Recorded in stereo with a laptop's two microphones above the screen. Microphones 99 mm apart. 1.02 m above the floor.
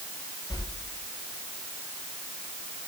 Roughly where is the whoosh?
Left.